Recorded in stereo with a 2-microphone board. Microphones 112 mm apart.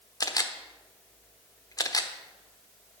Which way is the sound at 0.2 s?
35° left (ahead or behind).